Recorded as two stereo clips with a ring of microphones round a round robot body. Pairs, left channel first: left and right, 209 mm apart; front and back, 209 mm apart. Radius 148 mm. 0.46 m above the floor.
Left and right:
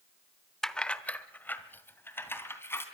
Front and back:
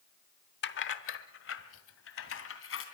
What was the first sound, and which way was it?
Keys jangling, 5° left.